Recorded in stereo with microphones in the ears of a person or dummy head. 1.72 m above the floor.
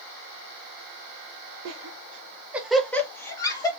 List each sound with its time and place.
1.6 s laughter: 80° right, 0.7 m; by 3.7 s 20° left (ahead or behind), 1.5 m